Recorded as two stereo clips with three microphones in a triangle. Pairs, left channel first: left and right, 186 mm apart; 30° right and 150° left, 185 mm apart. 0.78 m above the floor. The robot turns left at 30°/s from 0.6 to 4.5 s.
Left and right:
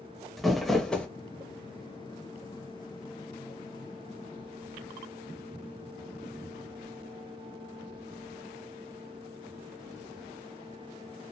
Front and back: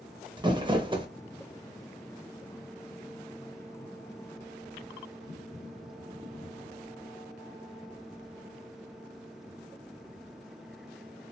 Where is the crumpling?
Straight behind, 0.5 m; by 1.1 s 165° left, 0.5 m.